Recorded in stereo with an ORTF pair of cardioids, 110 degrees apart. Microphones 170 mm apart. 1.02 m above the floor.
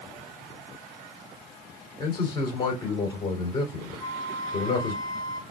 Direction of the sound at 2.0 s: 30° left.